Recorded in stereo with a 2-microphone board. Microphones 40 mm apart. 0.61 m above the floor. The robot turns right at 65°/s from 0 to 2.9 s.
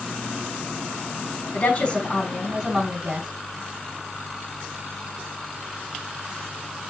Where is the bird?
I don't hear a bird.